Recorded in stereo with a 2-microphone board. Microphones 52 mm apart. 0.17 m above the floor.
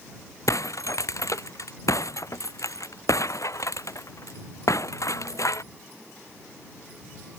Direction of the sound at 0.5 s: 85° left.